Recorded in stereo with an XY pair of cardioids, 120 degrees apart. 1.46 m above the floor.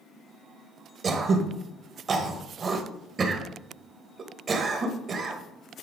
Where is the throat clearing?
40° right, 1.2 m.